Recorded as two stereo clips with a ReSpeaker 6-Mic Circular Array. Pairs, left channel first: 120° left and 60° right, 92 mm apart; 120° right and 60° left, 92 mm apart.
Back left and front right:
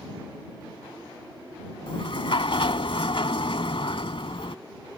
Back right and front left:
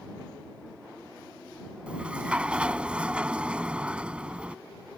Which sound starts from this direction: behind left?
A sliding door, at 1.9 s.